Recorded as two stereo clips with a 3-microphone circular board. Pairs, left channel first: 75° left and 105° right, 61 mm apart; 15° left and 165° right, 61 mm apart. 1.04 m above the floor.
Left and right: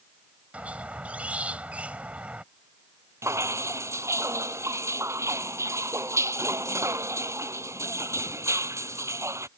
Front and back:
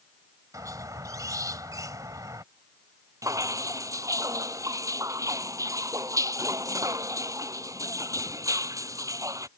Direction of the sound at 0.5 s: 170° right.